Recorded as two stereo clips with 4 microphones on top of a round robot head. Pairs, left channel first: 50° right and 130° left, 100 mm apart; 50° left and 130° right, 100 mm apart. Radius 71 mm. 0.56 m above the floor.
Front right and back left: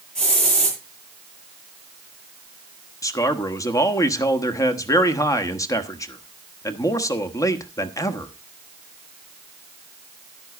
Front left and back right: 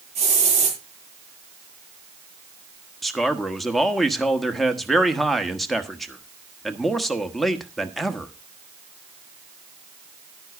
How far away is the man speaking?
About 1.4 m.